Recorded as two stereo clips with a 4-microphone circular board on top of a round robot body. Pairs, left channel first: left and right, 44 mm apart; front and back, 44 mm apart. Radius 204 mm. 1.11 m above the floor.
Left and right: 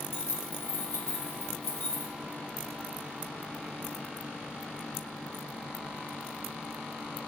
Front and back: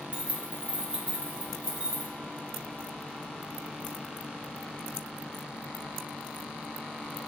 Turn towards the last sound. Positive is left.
turn(degrees=115)